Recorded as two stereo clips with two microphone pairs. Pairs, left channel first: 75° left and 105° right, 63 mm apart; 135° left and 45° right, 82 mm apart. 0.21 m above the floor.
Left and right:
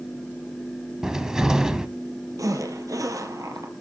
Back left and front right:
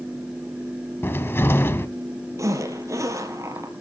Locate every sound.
1.0 s a cupboard door: 175° left, 1.0 m
2.4 s a zipper: 95° right, 2.5 m